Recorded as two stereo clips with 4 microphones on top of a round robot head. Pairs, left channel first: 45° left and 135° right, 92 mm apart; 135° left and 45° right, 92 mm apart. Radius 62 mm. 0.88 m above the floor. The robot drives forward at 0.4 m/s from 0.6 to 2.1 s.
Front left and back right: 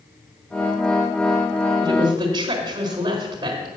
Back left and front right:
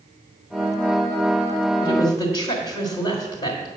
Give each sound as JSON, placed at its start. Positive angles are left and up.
{"t": 1.8, "sound": "a woman speaking", "azimuth_deg": 175, "distance_m": 1.9}